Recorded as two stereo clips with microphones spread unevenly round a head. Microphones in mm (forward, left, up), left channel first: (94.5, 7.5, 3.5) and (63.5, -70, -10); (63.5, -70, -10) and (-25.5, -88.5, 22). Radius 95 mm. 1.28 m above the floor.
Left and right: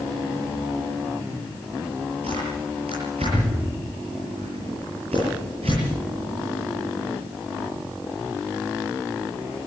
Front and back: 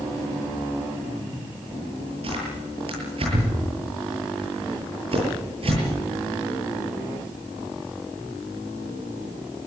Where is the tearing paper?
165° right, 9.5 m.